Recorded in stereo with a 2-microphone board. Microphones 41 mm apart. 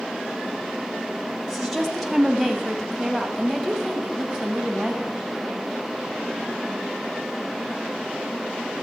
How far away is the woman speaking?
About 1.9 m.